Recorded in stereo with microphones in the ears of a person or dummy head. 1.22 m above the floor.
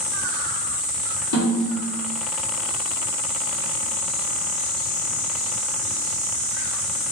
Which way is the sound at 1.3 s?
75° left (ahead or behind).